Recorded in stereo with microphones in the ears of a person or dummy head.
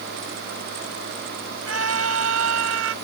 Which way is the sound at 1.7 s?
90° right.